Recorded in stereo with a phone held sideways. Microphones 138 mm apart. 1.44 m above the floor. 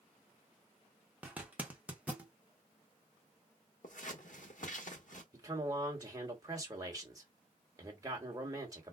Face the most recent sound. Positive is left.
turn(degrees=-25)  # may be behind; listen again after turning